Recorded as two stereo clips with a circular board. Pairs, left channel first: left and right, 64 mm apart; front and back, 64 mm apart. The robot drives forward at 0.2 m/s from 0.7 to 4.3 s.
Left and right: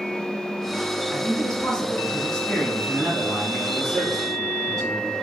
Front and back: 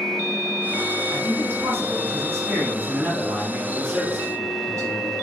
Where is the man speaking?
160° left, 1.2 m; by 5.1 s 170° left, 1.6 m.